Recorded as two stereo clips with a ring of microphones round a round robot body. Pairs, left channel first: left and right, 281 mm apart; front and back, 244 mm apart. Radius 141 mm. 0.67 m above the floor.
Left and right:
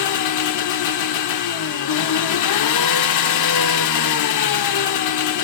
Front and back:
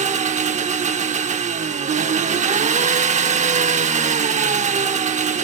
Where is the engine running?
115° left, 0.7 m.